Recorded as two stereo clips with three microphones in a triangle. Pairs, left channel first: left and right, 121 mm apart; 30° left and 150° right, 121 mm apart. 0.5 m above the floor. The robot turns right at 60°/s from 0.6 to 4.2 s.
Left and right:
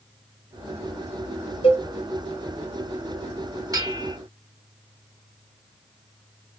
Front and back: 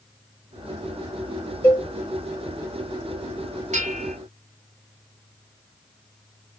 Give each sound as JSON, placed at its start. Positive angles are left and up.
{"t": 1.6, "sound": "a cowbell", "azimuth_deg": 95, "distance_m": 2.0}
{"t": 3.7, "sound": "a bell", "azimuth_deg": -150, "distance_m": 1.1}